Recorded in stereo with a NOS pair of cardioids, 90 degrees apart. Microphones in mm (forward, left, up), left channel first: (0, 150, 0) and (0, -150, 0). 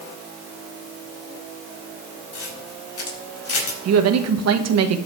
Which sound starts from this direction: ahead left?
A camera shutter, at 2.3 s.